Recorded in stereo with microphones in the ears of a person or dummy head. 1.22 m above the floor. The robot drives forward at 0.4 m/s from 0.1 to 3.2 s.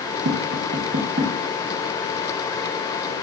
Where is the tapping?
60° right (ahead or behind), 0.9 m; by 3.1 s 25° right (ahead or behind), 1.8 m.